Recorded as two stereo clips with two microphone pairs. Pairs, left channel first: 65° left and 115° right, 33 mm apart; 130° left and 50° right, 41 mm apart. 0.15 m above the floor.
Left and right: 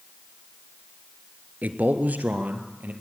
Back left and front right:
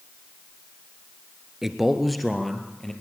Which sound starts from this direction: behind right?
A man speaking, at 1.6 s.